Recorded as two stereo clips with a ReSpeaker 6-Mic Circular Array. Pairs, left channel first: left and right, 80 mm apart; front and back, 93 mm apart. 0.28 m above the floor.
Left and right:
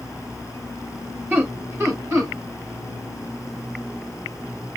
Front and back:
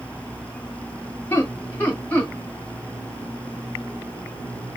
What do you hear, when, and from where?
1.3 s laughter: 50° right, 1.8 m; by 2.3 s 60° right, 2 m